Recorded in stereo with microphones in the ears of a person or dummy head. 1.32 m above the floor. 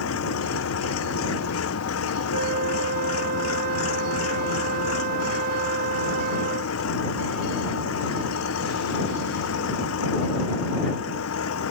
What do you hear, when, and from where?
0.0 s an engine running: 85° left
2.3 s a flute: 55° right (ahead or behind)